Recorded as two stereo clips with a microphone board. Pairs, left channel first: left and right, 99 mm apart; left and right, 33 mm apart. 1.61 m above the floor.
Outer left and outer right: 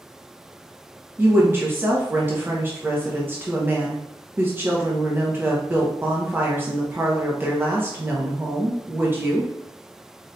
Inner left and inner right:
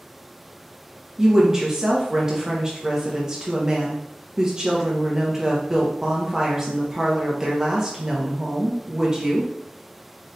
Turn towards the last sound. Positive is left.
turn(degrees=-25)  # may be behind; listen again after turning